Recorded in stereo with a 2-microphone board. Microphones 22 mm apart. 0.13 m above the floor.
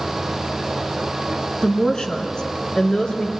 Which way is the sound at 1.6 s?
30° left (ahead or behind).